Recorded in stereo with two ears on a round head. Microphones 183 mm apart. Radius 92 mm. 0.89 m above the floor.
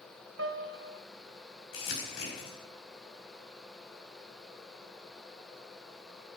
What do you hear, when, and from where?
0.4 s a piano: 55° right (ahead or behind), 0.7 m
1.7 s crumpling: 65° left (ahead or behind), 5 m